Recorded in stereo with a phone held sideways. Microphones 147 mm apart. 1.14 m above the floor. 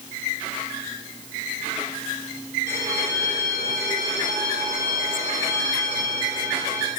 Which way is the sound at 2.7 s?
70° right (ahead or behind).